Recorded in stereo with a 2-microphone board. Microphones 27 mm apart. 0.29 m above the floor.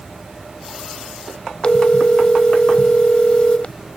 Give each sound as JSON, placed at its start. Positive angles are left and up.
{"t": 1.6, "sound": "a phone ringing", "side_deg": 40}